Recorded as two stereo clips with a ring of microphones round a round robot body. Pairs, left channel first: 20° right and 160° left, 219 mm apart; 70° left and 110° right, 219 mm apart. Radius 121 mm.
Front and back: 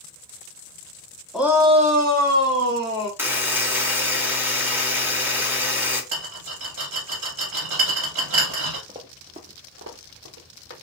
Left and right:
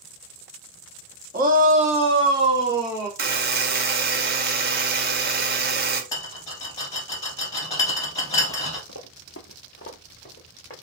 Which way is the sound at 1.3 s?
115° right.